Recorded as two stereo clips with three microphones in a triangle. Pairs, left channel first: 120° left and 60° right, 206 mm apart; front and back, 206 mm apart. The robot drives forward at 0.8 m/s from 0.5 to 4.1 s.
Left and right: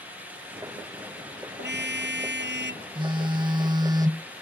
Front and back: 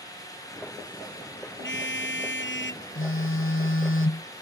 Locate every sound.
1.6 s a car horn: 25° right; by 2.9 s 30° right
3.0 s a phone buzzing: 5° left; by 4.3 s 15° left